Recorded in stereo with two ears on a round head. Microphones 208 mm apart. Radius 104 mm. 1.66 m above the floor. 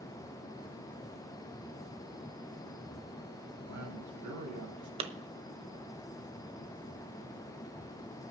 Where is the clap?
25° right (ahead or behind), 1.0 m.